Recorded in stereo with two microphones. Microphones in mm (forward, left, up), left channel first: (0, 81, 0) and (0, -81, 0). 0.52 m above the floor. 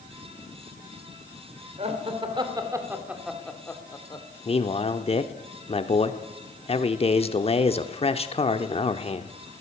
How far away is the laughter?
About 2.5 m.